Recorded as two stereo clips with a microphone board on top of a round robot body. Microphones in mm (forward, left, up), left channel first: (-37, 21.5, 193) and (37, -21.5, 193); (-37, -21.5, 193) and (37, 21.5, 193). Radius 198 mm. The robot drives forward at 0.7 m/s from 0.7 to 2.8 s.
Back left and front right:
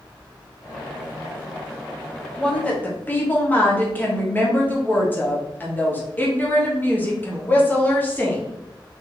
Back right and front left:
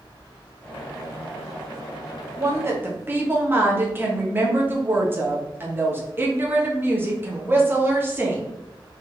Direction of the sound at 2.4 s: 70° left.